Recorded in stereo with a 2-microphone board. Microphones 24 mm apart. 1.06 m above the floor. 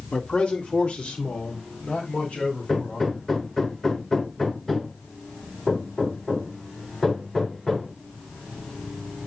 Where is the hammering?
20° left (ahead or behind), 3.5 m.